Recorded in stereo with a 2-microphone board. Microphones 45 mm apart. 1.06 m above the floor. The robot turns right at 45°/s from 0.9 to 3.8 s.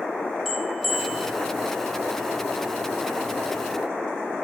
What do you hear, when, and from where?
0.5 s a bell: 10° left (ahead or behind), 1.0 m; by 1.3 s 5° right (ahead or behind), 1.0 m